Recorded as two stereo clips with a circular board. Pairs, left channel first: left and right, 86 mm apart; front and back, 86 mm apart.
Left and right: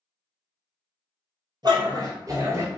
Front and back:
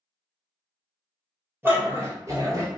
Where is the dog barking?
115° right, 1.3 m; by 2.7 s 145° right, 1.1 m.